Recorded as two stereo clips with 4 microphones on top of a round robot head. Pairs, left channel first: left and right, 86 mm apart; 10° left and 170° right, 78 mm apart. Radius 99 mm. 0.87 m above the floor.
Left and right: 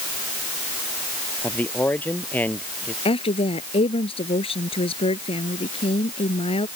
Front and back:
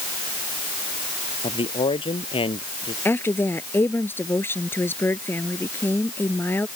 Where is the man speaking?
20° left.